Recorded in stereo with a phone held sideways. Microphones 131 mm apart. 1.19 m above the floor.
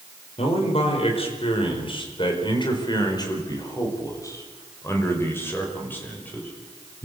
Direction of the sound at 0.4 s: 50° left (ahead or behind).